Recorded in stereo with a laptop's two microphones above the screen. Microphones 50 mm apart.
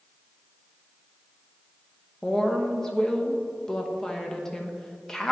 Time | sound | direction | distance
2.2 | a woman speaking | 10° left (ahead or behind) | 1.0 m